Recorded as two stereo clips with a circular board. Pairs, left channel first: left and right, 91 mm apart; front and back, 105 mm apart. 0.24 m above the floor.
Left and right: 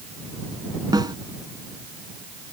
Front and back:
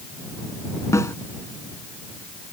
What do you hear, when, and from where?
0.9 s a snare drum: 55° right